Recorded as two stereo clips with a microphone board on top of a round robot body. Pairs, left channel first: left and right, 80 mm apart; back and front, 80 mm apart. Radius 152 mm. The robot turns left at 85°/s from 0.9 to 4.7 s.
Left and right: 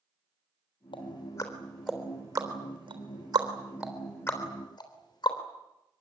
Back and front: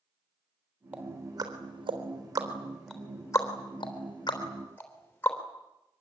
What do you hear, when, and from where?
0.9 s ticking: 75° left, 3.5 m; by 5.4 s 115° left, 3.5 m